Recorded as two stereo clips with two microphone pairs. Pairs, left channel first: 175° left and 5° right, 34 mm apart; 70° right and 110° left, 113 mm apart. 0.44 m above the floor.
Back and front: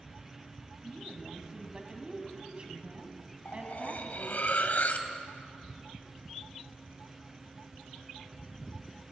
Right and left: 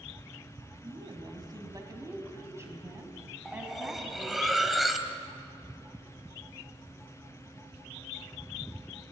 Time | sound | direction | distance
0.8 | a woman speaking | 70° left | 3.5 m
3.5 | cutlery clinking | 160° right | 1.5 m